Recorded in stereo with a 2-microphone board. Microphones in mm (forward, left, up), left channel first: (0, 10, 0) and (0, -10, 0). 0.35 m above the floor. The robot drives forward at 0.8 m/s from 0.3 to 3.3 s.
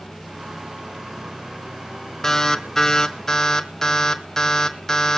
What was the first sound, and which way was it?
An alarm, 20° left (ahead or behind).